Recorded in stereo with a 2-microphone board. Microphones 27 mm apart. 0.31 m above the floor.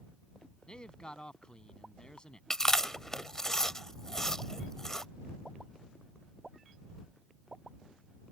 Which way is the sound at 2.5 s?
20° left (ahead or behind).